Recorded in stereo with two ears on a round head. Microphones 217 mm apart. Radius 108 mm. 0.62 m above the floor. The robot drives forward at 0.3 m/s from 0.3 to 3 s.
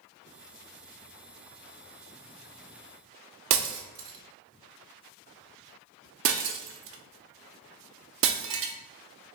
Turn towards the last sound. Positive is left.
turn(degrees=-55)  # may be behind; listen again after turning